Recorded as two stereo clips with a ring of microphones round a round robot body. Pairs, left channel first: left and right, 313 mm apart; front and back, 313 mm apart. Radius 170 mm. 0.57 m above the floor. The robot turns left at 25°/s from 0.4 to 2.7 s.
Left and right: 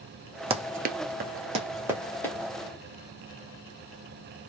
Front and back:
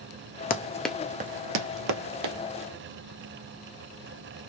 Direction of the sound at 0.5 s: 35° right.